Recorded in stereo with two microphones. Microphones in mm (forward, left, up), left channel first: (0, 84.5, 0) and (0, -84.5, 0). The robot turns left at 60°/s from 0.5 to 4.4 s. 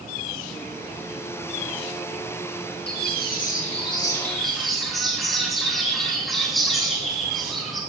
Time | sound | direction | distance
2.9 | a bird | 95° left | 3.5 m